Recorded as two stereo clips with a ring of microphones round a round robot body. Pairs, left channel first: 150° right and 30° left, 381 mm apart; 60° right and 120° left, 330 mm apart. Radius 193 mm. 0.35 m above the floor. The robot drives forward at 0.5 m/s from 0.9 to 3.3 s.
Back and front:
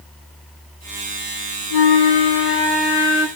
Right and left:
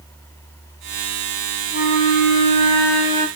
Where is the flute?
130° right, 3 m; by 3.3 s 140° right, 3.5 m.